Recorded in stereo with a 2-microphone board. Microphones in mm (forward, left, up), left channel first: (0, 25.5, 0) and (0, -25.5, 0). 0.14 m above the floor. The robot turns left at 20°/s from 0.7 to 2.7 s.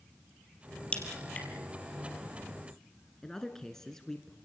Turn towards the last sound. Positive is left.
turn(degrees=10)  # may be behind; listen again after turning